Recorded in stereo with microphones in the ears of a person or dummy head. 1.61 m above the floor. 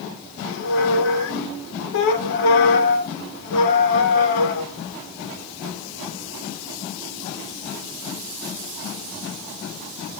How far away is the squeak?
About 1.2 m.